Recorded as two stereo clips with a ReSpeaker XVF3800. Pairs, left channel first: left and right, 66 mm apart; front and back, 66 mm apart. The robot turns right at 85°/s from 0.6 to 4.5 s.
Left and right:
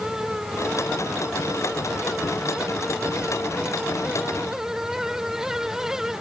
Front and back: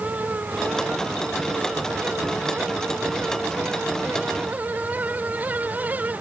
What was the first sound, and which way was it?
Only background noise.